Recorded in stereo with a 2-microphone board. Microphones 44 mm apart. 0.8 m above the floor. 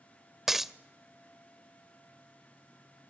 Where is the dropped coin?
10° right (ahead or behind), 0.5 m.